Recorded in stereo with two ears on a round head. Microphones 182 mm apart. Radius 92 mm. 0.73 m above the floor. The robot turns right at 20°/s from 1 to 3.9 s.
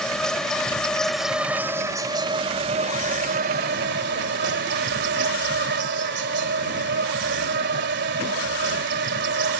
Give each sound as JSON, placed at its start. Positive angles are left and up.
{"t": 0.0, "sound": "an insect", "azimuth_deg": 175}